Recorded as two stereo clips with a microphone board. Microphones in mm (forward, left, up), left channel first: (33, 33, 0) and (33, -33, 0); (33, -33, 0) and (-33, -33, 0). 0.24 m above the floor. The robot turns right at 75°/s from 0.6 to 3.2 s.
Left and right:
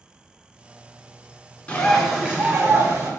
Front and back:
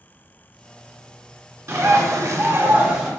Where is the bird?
155° left, 1.8 m; by 3.1 s 95° right, 1.8 m.